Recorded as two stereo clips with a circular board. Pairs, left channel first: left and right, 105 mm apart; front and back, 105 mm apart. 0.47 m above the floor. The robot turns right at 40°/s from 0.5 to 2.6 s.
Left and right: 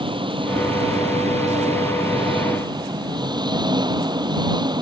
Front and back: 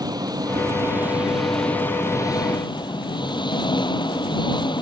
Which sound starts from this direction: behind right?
An engine running, at 0.0 s.